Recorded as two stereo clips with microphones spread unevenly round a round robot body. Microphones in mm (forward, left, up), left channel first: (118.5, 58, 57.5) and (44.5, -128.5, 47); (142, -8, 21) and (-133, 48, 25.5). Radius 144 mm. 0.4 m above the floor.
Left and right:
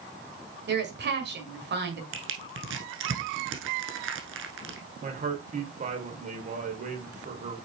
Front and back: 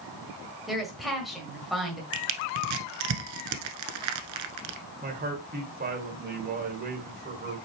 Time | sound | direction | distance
0.7 | a woman speaking | 100° right | 1.8 m
2.1 | crushing | 160° right | 1.0 m
5.0 | a man speaking | 145° right | 1.9 m